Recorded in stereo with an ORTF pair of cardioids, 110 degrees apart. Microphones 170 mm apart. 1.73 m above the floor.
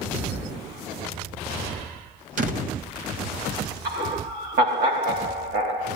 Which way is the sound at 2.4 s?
55° right.